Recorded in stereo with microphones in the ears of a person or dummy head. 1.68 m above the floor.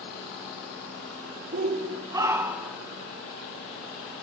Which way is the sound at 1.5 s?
35° right (ahead or behind).